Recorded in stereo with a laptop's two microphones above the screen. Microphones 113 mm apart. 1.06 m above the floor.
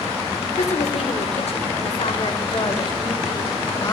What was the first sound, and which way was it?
A woman speaking, 80° left.